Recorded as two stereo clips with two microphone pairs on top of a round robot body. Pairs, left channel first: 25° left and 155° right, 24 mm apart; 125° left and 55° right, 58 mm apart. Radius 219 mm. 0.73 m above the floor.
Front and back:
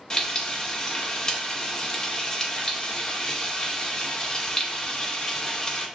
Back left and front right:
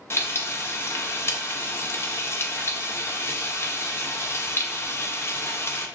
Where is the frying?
85° left, 0.8 m.